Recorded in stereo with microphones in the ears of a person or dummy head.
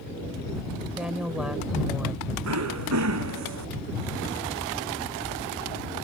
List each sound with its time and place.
1.0 s a woman speaking: 5° right (ahead or behind)
2.4 s throat clearing: 80° right